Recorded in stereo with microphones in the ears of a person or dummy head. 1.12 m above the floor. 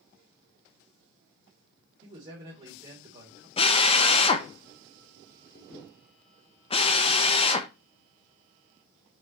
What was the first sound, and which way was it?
A man speaking, 30° right (ahead or behind).